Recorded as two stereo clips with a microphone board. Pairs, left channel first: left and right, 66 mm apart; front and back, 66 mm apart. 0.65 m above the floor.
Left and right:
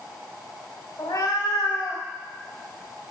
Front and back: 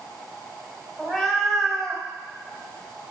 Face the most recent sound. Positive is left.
turn(degrees=85)